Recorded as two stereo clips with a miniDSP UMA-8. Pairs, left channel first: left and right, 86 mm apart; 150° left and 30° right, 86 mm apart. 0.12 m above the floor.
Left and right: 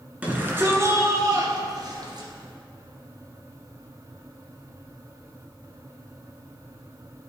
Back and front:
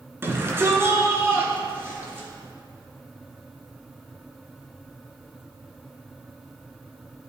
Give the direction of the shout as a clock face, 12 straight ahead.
1 o'clock.